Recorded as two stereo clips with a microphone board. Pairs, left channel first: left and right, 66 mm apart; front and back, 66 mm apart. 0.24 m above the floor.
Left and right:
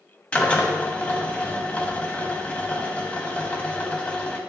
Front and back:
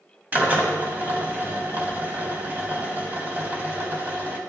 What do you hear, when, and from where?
0.3 s a drill: 145° left, 1.3 m